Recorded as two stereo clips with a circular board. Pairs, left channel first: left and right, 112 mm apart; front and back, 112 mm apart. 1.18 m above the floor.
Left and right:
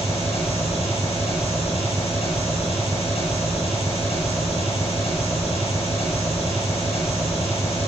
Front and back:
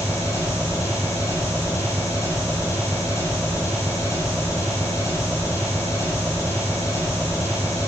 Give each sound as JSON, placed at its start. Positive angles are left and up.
{"t": 0.0, "sound": "an engine running", "azimuth_deg": 65, "distance_m": 8.5}